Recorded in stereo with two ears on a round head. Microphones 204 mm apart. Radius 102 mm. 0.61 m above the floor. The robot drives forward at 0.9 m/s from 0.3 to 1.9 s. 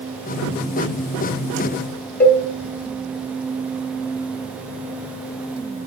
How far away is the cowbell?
About 1.0 m.